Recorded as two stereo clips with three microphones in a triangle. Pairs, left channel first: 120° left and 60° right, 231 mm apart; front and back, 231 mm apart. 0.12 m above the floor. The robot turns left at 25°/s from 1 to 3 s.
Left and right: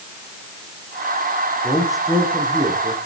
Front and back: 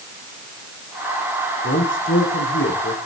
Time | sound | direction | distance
1.6 | a man speaking | 35° left | 6.5 m